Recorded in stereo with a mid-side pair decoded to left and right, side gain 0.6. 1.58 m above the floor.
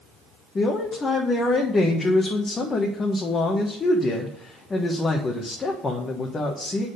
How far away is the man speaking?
About 1.4 m.